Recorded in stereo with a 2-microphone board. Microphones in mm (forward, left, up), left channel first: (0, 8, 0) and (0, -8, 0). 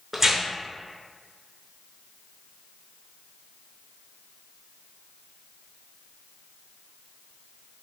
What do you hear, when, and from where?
0.1 s tearing paper: 20° right (ahead or behind), 0.6 m